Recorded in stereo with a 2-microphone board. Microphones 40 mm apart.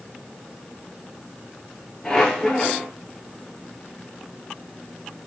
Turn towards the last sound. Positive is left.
turn(degrees=15)  # may be behind; listen again after turning